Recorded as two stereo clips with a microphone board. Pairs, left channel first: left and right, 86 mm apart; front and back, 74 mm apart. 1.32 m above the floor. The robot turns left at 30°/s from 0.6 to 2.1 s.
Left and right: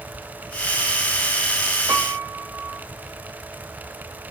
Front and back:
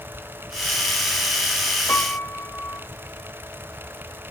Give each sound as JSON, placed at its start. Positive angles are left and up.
{"t": 1.9, "sound": "a piano", "azimuth_deg": -50, "distance_m": 1.4}